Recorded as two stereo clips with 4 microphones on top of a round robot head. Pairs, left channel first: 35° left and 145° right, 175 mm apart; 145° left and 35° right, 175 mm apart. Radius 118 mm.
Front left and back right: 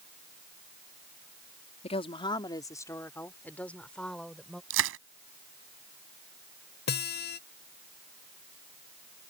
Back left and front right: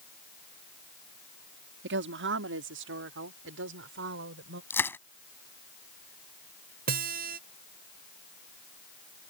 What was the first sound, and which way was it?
A woman speaking, 20° right.